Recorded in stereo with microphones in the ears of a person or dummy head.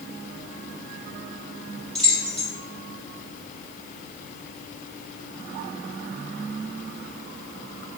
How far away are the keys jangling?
About 0.9 m.